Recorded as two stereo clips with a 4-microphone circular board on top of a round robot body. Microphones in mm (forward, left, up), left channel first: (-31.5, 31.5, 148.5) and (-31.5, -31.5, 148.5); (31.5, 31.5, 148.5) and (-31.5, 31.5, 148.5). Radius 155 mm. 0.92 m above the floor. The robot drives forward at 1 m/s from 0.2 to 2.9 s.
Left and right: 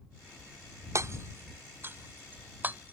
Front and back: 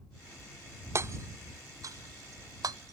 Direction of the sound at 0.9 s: 135° right.